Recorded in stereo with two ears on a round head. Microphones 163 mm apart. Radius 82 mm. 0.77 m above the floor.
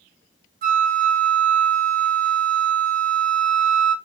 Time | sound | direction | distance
0.6 | a flute | 50° right (ahead or behind) | 1.0 m